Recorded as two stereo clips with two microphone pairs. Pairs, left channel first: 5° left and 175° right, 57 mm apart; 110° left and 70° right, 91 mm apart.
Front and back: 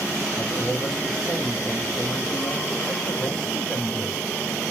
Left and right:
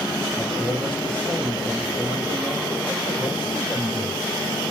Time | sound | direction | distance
0.4 | a man speaking | 90° left | 2 m